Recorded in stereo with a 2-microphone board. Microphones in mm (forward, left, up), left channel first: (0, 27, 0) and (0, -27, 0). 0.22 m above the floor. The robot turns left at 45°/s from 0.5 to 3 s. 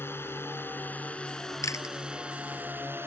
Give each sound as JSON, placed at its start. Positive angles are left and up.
{"t": 0.0, "sound": "a drone", "azimuth_deg": 55}
{"t": 1.6, "sound": "chewing", "side_deg": 80}